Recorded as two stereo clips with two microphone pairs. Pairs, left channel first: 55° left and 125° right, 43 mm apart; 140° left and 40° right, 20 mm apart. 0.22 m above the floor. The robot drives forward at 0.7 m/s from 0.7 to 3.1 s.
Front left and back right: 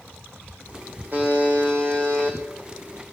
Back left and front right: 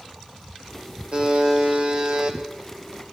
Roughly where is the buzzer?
Right.